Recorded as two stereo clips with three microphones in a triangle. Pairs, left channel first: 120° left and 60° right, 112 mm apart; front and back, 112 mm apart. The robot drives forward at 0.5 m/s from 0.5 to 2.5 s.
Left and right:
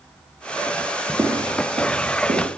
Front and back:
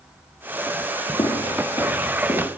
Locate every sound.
1.2 s footsteps: 10° right, 1.3 m; by 2.5 s 65° right, 2 m